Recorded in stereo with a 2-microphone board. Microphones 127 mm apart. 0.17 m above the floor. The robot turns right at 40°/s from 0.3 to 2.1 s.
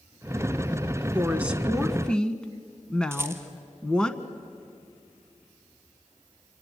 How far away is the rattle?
About 2.0 m.